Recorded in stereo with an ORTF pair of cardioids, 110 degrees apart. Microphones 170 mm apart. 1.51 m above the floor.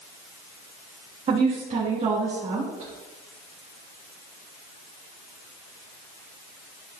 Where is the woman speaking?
40° right, 3 m.